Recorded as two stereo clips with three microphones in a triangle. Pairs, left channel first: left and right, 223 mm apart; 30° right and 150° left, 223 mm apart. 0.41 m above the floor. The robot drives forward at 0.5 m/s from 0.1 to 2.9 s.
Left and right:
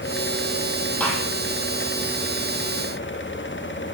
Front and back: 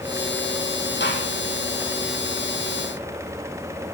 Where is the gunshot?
5° left, 2.5 m.